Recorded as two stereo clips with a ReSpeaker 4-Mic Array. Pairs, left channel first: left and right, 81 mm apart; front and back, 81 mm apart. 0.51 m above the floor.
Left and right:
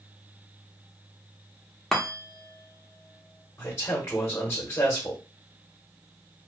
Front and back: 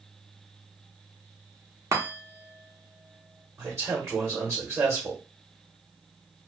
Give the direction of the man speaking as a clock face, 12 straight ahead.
7 o'clock.